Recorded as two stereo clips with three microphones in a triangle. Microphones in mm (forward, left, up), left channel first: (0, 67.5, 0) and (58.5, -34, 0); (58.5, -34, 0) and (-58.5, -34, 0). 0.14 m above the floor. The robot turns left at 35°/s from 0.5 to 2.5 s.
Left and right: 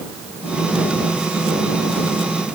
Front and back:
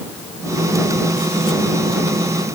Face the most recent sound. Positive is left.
No sound to turn to.